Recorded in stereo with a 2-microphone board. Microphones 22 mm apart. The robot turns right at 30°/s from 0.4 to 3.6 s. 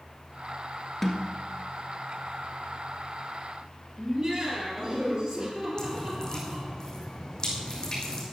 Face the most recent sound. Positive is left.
turn(degrees=40)  # may be behind; listen again after turning